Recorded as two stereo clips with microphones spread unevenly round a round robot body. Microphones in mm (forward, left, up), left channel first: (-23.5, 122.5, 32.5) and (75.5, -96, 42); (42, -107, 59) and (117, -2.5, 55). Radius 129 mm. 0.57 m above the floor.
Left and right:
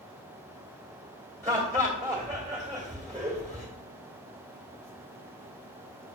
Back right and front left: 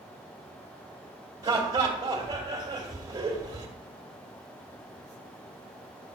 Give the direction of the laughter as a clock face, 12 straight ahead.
12 o'clock.